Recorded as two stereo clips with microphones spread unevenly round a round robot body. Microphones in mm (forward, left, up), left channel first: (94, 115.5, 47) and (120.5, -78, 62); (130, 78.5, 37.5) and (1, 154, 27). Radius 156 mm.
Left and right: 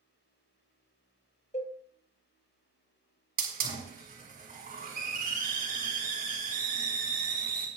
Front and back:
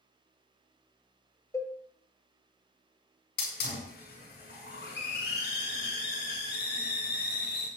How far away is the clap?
I don't hear a clap.